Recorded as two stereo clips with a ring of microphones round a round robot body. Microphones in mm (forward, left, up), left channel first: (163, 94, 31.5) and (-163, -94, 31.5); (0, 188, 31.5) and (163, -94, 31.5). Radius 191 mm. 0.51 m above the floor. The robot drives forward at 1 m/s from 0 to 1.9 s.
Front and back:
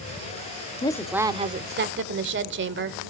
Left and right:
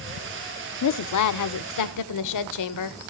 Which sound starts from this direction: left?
A woman speaking, at 0.8 s.